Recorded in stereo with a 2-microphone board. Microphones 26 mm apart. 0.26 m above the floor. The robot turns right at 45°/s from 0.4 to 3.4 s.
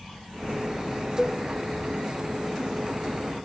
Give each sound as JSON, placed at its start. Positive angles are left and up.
{"t": 1.2, "sound": "a cowbell", "side_deg": 15, "distance_m": 1.2}